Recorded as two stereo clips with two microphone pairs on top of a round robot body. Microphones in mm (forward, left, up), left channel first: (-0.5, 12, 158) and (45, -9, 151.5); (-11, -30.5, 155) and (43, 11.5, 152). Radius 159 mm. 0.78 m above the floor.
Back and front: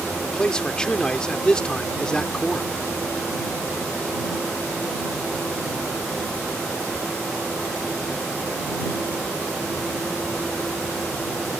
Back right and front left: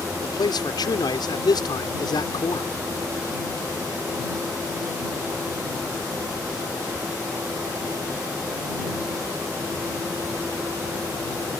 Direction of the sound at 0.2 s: 130° right.